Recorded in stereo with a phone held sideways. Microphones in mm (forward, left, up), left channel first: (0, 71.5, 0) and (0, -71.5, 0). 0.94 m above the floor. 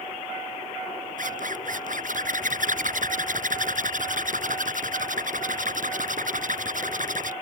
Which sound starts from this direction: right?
A zipper, at 1.2 s.